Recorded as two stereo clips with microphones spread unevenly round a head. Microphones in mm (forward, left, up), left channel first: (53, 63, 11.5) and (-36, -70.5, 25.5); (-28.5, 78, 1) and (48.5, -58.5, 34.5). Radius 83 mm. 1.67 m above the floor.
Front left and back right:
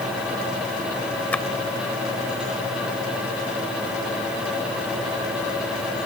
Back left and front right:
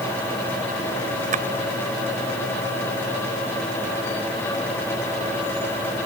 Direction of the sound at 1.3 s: 25° right.